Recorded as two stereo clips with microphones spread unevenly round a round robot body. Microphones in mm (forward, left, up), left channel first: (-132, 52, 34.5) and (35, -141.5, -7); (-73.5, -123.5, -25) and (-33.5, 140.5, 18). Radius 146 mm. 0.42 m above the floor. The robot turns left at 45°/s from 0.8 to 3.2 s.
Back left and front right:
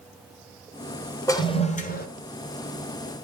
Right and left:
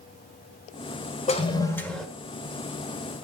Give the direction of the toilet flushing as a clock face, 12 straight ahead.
5 o'clock.